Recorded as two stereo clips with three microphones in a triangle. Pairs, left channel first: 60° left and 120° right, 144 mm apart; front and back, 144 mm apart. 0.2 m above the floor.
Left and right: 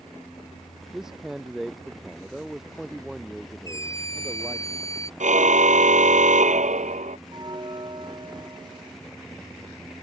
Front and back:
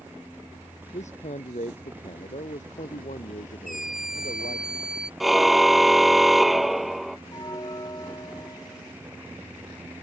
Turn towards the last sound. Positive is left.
turn(degrees=-60)